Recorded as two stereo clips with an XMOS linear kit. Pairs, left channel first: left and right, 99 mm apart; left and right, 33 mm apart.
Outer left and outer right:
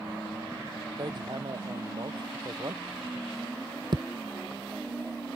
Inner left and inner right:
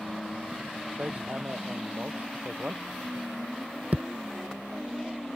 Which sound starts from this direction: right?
Hammering, at 1.0 s.